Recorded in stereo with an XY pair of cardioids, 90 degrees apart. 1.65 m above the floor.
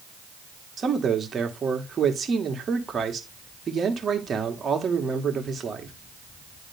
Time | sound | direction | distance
0.8 | a man speaking | 45° right | 1.7 m